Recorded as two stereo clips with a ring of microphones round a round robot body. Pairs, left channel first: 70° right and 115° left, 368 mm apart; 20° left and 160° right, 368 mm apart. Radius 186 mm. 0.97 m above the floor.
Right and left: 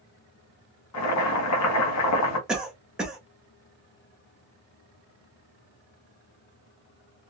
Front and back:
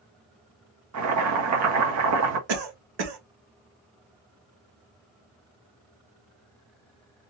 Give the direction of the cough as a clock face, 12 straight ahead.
5 o'clock.